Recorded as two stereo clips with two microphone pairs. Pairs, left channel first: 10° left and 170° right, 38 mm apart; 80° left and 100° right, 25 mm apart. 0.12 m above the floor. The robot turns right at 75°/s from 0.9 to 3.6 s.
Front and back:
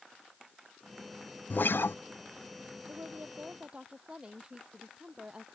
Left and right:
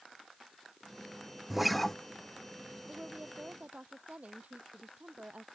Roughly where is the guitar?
Ahead right.